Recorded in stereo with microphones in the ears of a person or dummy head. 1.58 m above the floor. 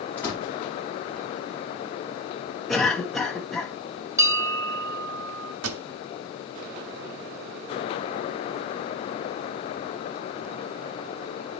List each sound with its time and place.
0.2 s a door slam: 15° left (ahead or behind), 3.5 m
2.7 s a cough: 5° left (ahead or behind), 1.2 m
4.2 s a bell: 15° right (ahead or behind), 0.6 m
5.6 s a pop: 85° right, 0.7 m